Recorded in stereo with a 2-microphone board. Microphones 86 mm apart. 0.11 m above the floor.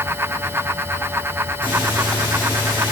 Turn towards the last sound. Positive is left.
turn(degrees=75)  # may be behind; listen again after turning